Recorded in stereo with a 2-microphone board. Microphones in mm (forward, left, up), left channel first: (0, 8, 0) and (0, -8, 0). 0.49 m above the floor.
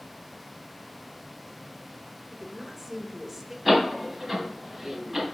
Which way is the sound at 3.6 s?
Centre (ahead or behind).